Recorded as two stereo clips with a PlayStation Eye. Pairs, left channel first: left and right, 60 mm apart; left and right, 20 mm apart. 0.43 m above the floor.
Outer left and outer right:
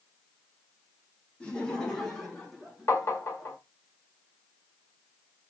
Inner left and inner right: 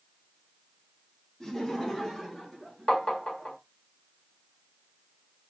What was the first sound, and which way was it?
Laughter, 20° left (ahead or behind).